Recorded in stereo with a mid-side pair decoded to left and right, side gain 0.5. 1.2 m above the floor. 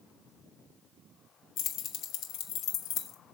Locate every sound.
1.6 s keys jangling: 65° left, 1.1 m